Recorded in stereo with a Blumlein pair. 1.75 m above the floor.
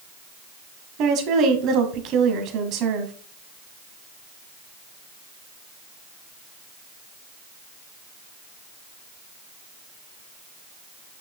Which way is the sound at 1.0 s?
35° right.